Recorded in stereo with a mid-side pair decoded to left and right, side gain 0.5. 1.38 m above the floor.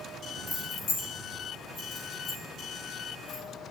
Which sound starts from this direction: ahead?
Keys jangling, at 0.5 s.